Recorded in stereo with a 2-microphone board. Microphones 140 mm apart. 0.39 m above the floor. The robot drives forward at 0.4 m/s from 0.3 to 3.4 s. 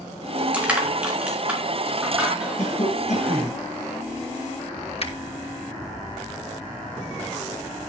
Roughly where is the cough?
Left.